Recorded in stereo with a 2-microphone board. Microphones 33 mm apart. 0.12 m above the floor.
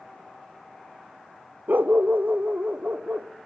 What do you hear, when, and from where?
1.7 s a dog barking: 60° right (ahead or behind), 0.7 m; by 3.3 s 50° right (ahead or behind), 2.5 m